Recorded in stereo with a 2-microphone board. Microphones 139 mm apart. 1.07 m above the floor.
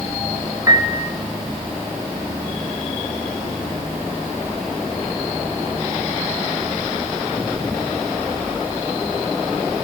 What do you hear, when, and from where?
0.7 s a piano: 25° right (ahead or behind), 0.9 m